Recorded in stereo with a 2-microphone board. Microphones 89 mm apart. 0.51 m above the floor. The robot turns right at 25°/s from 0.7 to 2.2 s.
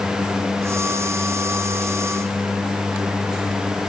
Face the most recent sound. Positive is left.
No sound to turn to.